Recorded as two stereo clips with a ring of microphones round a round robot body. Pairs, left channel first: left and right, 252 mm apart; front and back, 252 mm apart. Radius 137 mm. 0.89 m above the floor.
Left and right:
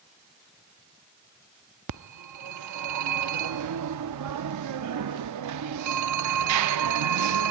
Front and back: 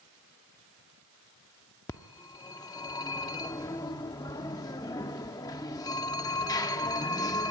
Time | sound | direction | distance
1.9 | a phone ringing | 80° right | 0.8 m